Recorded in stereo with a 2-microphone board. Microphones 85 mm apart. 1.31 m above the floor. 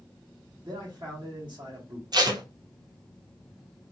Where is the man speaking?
60° right (ahead or behind), 1.0 m.